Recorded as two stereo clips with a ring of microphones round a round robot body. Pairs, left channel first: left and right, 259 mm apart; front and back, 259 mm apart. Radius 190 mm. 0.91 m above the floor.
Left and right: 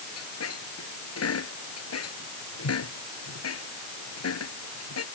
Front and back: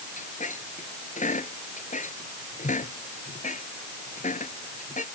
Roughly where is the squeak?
Ahead left.